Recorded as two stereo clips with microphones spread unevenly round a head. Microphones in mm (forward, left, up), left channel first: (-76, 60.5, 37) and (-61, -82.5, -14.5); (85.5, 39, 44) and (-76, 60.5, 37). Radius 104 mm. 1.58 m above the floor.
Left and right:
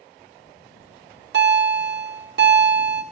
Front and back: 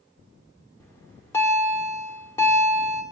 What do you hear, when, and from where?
0.8 s a bell: 85° right, 1.8 m